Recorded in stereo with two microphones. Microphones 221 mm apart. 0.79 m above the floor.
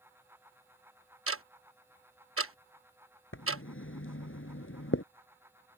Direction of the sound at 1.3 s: 80° right.